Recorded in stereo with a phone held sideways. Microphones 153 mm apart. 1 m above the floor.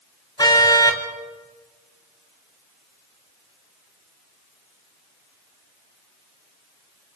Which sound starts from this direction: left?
A car horn, at 0.4 s.